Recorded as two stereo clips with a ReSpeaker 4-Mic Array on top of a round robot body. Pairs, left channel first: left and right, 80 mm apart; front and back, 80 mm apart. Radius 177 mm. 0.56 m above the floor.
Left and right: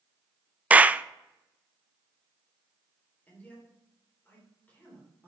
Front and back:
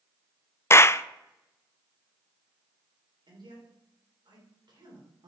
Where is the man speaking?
160° left, 3.5 m.